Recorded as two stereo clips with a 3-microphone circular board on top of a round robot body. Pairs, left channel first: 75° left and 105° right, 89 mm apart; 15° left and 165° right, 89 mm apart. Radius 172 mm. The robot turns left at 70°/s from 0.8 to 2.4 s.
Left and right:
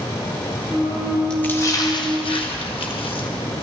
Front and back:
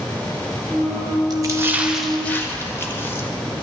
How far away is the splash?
About 1.7 m.